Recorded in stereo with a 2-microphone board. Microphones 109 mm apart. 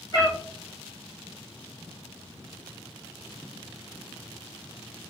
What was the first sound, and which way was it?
A cat meowing, 35° left (ahead or behind).